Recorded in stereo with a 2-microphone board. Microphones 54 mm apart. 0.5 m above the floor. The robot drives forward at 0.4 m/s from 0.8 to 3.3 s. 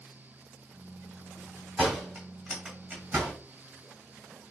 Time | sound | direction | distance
1.8 | a door slam | 25° right (ahead or behind) | 2 m